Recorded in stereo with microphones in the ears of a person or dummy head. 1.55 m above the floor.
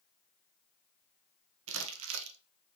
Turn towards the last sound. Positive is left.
turn(degrees=-85)